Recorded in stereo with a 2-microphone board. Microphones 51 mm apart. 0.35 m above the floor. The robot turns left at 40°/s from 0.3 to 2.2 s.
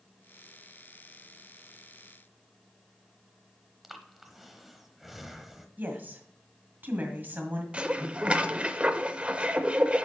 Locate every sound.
3.8 s breathing: centre (ahead or behind), 0.8 m
5.8 s a woman speaking: 35° right (ahead or behind), 1.8 m
7.7 s dishes clattering: 25° right (ahead or behind), 0.6 m